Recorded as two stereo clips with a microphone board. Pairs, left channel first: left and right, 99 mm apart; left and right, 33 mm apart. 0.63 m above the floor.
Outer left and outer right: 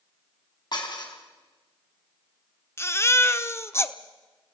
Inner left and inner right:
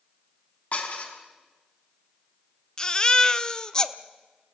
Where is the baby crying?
25° left (ahead or behind), 0.9 m.